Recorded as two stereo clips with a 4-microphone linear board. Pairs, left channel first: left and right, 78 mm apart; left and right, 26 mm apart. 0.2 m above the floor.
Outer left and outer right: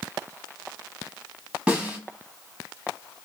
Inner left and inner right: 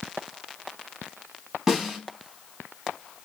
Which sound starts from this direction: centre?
A snare drum, at 1.7 s.